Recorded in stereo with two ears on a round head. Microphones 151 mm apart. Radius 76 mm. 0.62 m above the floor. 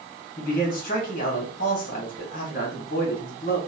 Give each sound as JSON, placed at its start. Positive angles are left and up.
{"t": 0.4, "sound": "a man speaking", "side_deg": 50, "distance_m": 1.4}